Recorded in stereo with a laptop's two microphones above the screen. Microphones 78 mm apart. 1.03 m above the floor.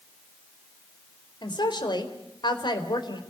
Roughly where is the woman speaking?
Left.